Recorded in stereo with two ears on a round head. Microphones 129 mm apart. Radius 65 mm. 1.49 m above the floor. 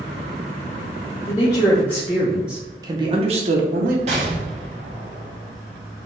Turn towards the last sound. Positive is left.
turn(degrees=-45)  # may be behind; listen again after turning